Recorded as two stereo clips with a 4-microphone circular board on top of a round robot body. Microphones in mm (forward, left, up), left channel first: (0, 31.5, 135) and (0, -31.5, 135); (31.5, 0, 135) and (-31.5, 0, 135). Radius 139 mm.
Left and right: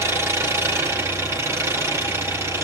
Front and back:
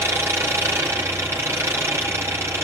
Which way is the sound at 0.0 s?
130° right.